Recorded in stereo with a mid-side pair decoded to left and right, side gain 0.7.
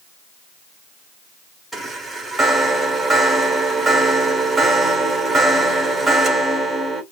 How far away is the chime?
About 1.8 m.